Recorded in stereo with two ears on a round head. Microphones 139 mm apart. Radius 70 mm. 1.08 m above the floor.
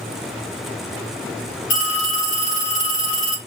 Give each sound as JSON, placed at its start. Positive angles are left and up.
{"t": 1.7, "sound": "a phone ringing", "side_deg": 80, "distance_m": 1.4}